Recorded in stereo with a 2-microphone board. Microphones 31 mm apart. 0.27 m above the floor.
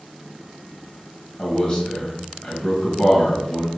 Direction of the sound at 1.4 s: 30° left (ahead or behind).